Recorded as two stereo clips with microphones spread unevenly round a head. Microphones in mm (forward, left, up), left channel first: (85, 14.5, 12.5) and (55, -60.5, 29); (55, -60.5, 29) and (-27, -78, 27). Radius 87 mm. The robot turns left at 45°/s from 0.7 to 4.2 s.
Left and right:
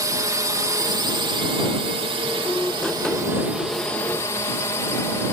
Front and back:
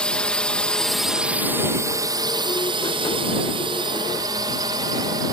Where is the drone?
65° right; by 5.3 s 135° left.